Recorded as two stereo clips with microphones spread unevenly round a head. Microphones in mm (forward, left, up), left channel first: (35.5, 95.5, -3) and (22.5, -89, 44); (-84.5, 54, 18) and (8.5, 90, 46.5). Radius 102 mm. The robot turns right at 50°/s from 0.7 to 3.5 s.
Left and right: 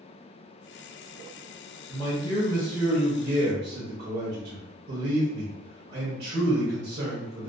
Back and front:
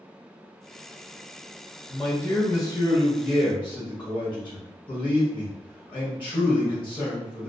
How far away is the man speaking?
About 0.9 m.